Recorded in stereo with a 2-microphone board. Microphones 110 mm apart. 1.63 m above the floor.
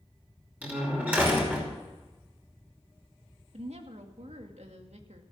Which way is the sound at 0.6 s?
15° right (ahead or behind).